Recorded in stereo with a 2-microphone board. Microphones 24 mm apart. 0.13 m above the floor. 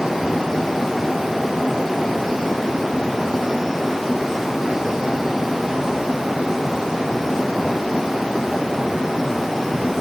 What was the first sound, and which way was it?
Only background noise.